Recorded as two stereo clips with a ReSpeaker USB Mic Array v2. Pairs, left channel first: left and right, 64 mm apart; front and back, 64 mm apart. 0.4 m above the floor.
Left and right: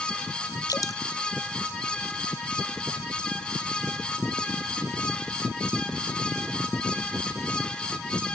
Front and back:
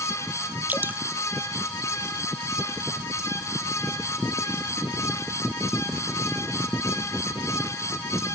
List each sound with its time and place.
0.7 s dripping: 120° left